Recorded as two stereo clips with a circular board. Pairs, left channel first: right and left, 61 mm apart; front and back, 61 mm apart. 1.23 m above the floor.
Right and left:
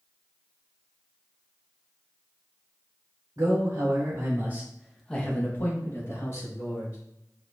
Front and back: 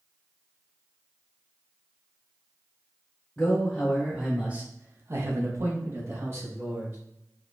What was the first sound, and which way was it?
A man speaking, 75° left.